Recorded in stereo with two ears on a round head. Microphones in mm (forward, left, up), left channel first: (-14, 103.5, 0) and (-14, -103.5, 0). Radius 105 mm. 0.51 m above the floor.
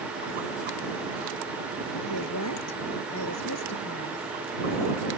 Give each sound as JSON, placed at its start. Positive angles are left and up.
{"t": 2.1, "sound": "a woman speaking", "side_deg": 85}